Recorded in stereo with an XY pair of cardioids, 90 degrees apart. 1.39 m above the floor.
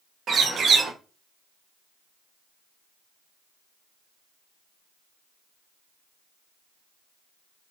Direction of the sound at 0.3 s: 65° right.